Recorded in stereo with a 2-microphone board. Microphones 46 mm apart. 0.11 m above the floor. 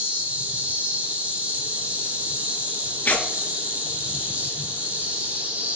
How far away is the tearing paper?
About 0.6 m.